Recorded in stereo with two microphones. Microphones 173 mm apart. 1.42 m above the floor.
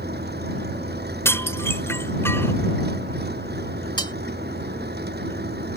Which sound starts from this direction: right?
An engine running, at 0.0 s.